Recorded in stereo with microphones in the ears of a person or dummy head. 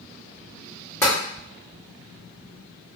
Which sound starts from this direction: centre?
Tapping, at 1.0 s.